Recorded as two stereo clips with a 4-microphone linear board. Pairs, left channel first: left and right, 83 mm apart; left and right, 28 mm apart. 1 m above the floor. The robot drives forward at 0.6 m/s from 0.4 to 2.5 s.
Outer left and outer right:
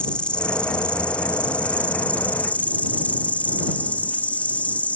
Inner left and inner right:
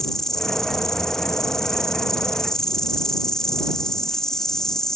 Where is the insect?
15° left (ahead or behind); by 5.0 s 20° left (ahead or behind).